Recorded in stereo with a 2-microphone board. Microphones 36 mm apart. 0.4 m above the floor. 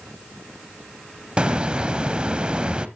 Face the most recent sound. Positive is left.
turn(degrees=-25)  # may be behind; listen again after turning